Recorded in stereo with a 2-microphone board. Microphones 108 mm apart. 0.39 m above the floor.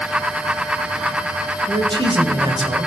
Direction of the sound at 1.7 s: 50° right (ahead or behind).